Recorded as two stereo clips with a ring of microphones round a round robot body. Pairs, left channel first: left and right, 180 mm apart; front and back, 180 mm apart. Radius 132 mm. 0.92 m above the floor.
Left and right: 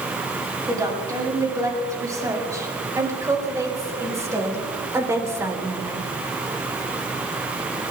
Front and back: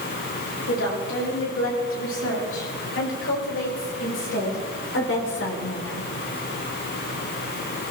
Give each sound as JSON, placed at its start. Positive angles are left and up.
{"t": 0.7, "sound": "a woman speaking", "azimuth_deg": -20, "distance_m": 8.0}